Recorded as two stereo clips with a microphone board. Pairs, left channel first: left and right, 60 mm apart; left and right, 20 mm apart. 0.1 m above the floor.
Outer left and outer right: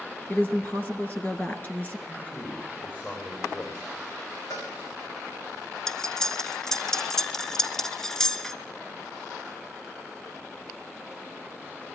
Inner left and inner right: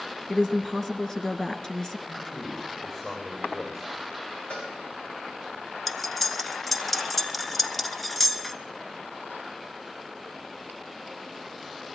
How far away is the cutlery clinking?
About 0.7 m.